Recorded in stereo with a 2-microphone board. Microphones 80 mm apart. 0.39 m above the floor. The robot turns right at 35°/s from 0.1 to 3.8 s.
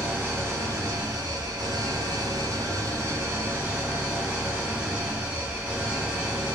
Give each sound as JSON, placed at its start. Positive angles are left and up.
{"t": 0.0, "sound": "an engine running", "azimuth_deg": -155, "distance_m": 0.8}